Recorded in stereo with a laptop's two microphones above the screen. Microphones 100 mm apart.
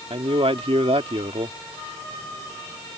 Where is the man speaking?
75° right (ahead or behind).